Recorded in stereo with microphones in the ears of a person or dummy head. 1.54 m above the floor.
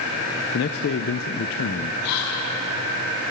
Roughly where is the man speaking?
Left.